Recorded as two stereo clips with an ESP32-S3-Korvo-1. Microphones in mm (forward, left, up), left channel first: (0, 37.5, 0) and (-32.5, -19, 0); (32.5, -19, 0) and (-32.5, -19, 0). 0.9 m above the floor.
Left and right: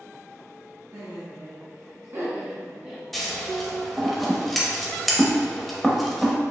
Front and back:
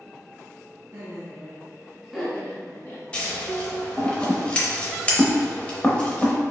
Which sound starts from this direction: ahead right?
Scissors, at 3.1 s.